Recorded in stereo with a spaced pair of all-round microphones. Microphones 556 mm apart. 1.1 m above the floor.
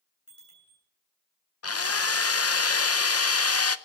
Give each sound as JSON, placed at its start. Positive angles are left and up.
{"t": 0.3, "sound": "a bicycle bell", "side_deg": 60, "distance_m": 9.5}
{"t": 1.6, "sound": "a drill", "side_deg": 30, "distance_m": 0.5}